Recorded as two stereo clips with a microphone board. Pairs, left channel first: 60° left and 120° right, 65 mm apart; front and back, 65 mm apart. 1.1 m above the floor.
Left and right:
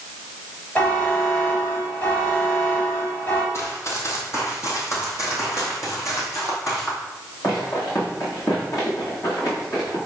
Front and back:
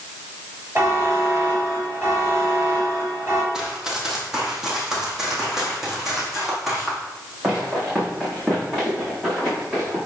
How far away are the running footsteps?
About 2 m.